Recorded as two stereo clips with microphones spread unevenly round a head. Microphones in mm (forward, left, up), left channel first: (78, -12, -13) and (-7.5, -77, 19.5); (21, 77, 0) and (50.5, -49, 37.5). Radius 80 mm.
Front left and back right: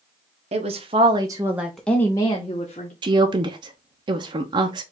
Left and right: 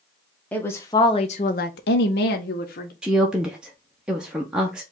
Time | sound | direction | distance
0.5 | a woman speaking | 170° right | 0.9 m
3.0 | a woman speaking | 150° right | 0.6 m